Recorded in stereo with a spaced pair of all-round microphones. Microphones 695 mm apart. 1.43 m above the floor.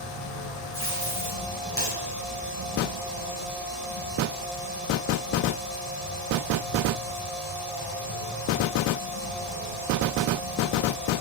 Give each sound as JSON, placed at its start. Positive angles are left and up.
{"t": 0.7, "sound": "tape being pulled", "side_deg": 20, "distance_m": 4.5}